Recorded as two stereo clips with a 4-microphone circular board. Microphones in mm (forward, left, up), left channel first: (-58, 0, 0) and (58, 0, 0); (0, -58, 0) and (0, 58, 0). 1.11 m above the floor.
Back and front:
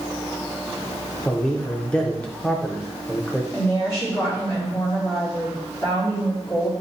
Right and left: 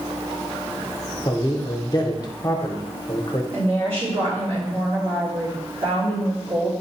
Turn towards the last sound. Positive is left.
turn(degrees=120)